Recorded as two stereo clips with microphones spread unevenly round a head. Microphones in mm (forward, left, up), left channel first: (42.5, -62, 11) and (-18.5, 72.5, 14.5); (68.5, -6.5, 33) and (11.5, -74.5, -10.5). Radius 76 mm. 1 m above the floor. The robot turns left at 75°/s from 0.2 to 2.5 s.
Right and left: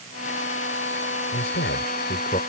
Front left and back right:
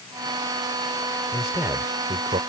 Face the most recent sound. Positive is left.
turn(degrees=-125)